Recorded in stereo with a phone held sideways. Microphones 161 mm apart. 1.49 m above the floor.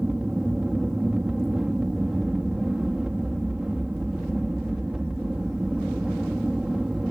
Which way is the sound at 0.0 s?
5° right (ahead or behind).